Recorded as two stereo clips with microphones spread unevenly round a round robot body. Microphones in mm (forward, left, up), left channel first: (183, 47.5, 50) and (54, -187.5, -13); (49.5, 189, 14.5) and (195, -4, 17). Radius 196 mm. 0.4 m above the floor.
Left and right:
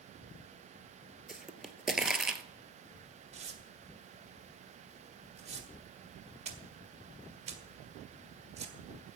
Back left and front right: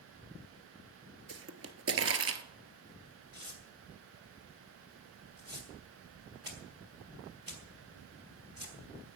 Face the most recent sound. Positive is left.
turn(degrees=-115)